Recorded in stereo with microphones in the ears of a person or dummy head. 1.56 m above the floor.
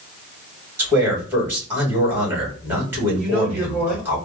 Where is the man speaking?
15° right (ahead or behind), 2.5 m.